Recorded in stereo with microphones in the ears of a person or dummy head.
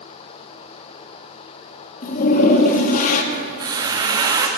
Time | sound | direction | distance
2.0 | a toilet flushing | 45° left (ahead or behind) | 1.1 m
3.3 | a squeak | 20° right (ahead or behind) | 1.0 m